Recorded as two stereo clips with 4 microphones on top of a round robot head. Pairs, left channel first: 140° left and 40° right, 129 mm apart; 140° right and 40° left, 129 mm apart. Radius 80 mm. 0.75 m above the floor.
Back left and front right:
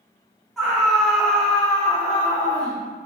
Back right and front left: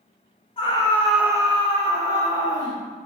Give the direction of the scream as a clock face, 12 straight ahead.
4 o'clock.